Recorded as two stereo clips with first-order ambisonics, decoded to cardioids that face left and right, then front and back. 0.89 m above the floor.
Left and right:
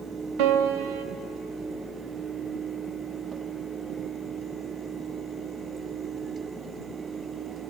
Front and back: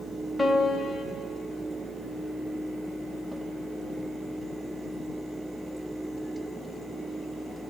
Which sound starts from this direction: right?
A piano, at 0.4 s.